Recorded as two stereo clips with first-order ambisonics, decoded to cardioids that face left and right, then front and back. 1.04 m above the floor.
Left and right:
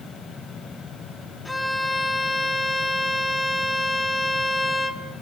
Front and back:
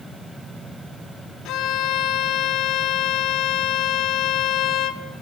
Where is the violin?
10° left, 0.7 m.